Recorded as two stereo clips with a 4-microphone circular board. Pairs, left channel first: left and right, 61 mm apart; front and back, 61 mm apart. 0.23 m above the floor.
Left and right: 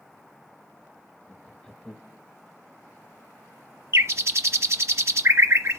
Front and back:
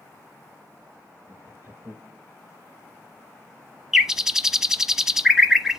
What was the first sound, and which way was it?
Laughter, 165° left.